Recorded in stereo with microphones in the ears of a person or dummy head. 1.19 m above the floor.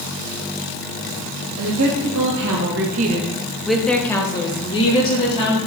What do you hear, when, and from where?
1.6 s a woman speaking: 85° right, 1.8 m; by 5.6 s 40° left (ahead or behind), 2.5 m